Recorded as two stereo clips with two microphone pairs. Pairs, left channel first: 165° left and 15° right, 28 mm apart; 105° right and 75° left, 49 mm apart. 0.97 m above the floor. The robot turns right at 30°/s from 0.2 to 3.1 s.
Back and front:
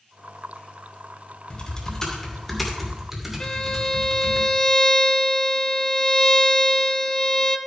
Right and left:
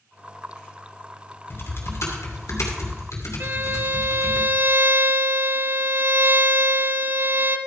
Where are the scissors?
I don't hear scissors.